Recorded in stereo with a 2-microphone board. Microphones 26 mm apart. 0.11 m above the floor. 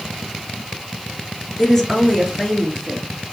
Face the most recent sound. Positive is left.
turn(degrees=5)  # may be behind; listen again after turning